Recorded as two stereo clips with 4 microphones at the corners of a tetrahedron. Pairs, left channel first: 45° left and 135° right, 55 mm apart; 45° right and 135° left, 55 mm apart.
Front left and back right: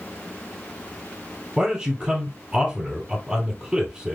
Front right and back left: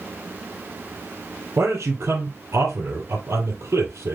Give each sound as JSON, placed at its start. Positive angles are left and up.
{"t": 1.6, "sound": "a man speaking", "azimuth_deg": 150, "distance_m": 2.5}